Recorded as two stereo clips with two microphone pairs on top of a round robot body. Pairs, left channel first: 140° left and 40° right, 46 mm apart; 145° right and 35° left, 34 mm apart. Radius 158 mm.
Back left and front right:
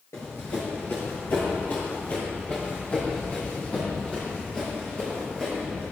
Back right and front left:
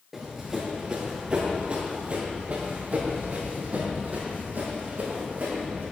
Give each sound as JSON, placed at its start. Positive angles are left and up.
{"t": 0.1, "sound": "running footsteps", "azimuth_deg": 115, "distance_m": 1.4}